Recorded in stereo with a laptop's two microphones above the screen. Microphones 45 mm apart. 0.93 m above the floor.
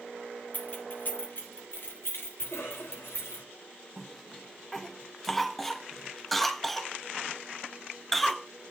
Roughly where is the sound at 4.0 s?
Centre.